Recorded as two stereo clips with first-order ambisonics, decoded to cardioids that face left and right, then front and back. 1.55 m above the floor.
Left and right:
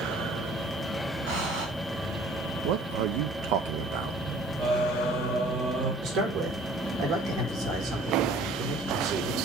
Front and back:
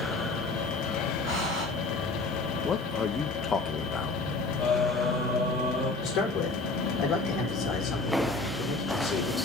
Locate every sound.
1.3 s breathing: 100° right, 5.5 m
2.6 s a man speaking: 75° right, 0.8 m
4.6 s singing: 95° right, 7 m
6.0 s a man speaking: 65° right, 5 m